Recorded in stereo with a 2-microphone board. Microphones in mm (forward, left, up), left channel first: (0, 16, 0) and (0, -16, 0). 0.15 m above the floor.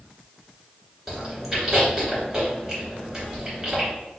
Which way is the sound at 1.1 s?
20° right (ahead or behind).